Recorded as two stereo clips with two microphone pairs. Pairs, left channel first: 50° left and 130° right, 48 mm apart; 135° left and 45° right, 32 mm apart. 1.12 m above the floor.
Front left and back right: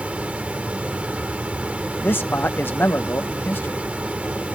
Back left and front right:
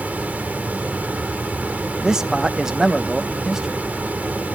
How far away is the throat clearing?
No throat clearing in this recording.